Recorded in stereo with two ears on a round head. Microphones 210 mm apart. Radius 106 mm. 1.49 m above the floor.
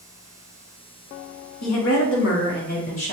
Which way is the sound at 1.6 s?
70° left (ahead or behind).